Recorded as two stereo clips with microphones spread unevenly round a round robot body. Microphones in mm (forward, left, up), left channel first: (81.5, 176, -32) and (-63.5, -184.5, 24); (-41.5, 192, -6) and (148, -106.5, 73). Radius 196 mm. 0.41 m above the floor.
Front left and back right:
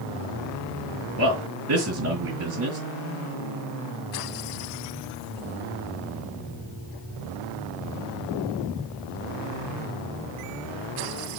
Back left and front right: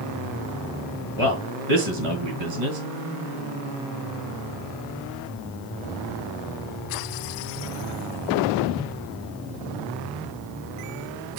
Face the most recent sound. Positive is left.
turn(degrees=-50)